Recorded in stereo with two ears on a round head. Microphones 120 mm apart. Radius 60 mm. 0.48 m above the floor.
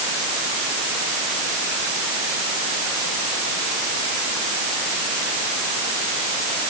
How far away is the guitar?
No guitar in this recording.